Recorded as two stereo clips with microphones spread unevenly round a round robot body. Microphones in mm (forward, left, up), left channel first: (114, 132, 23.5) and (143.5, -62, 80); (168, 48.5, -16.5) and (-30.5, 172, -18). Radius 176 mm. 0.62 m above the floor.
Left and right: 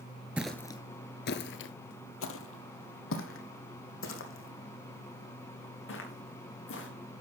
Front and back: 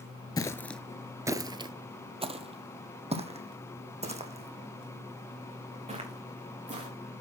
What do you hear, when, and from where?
0.4 s footsteps: 80° right, 0.6 m; by 6.9 s 85° left, 4.5 m